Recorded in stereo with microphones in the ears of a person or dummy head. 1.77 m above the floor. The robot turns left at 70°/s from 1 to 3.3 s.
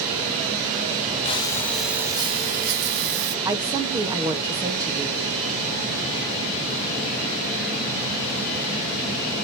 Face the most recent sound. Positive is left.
turn(degrees=-15)  # may be behind; listen again after turning